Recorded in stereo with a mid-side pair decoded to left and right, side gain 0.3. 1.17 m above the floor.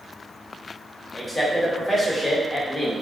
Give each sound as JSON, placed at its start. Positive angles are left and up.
{"t": 1.1, "sound": "a man speaking", "azimuth_deg": 30, "distance_m": 1.3}